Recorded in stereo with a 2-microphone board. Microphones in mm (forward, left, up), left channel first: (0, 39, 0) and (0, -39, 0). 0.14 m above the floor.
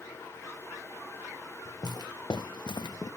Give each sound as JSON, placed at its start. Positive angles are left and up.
{"t": 1.6, "sound": "footsteps", "side_deg": 50, "distance_m": 1.3}